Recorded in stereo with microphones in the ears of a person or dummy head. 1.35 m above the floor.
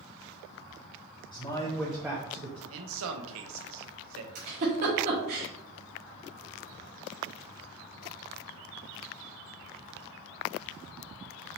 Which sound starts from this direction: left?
A man speaking, at 1.3 s.